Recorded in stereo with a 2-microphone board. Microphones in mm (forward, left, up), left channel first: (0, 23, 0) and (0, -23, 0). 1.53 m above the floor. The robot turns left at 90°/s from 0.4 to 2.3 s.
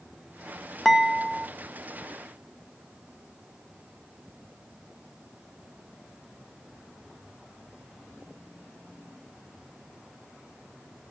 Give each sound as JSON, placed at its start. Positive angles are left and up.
{"t": 0.8, "sound": "dishes clattering", "side_deg": 10, "distance_m": 0.5}